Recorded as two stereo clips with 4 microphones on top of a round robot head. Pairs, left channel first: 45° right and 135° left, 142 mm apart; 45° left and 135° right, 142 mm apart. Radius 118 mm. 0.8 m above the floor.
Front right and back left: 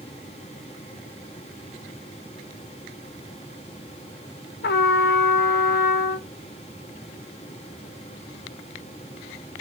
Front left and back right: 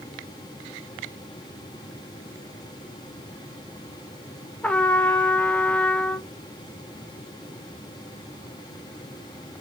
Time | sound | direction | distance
4.6 | a trumpet | 40° right | 0.7 m